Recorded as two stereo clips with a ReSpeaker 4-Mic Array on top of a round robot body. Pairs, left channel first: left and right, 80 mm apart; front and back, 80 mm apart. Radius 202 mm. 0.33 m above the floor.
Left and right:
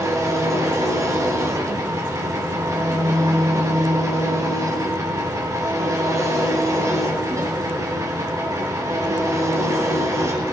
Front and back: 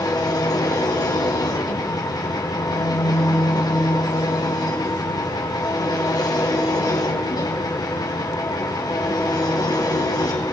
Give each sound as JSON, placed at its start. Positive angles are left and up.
{"t": 0.0, "sound": "an engine running", "azimuth_deg": -40, "distance_m": 2.0}